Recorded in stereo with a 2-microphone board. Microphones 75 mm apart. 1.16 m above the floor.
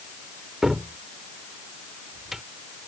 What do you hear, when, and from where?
0.6 s a cupboard door: 5° right (ahead or behind)